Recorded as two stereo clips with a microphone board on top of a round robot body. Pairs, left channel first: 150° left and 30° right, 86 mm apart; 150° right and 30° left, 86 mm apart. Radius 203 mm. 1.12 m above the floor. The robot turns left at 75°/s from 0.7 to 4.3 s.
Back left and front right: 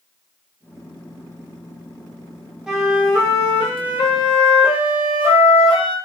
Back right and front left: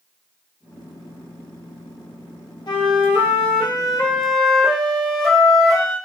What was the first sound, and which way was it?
A flute, 110° right.